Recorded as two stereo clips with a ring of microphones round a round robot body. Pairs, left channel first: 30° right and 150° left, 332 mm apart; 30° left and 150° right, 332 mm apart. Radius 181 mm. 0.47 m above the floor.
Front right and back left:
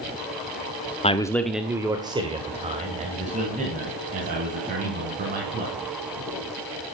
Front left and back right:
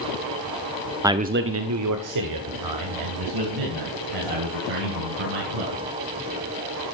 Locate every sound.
1.0 s a man speaking: 75° right, 1.0 m; by 5.8 s 145° right, 7 m